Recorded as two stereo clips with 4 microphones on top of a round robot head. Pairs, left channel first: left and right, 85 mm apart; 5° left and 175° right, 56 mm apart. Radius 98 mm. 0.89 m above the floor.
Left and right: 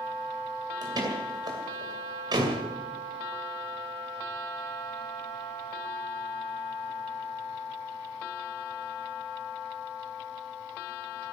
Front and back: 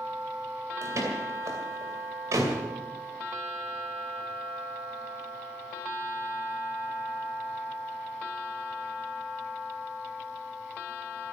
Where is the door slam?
135° right, 2.5 m.